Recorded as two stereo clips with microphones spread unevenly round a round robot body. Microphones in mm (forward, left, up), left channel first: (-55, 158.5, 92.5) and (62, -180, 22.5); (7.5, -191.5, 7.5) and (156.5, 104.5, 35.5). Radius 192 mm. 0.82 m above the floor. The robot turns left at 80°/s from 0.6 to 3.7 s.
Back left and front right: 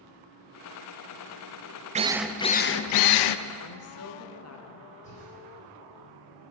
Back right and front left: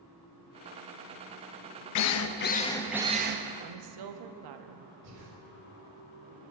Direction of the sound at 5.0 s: 35° left.